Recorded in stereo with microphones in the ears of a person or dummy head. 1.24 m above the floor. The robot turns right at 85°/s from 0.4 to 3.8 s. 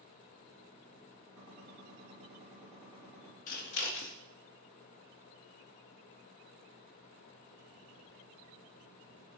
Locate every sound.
1.4 s a gunshot: 115° right, 2 m; by 3.4 s 55° left, 2 m
3.5 s scissors: 45° left (ahead or behind), 0.6 m; by 4.2 s 70° left (ahead or behind), 0.6 m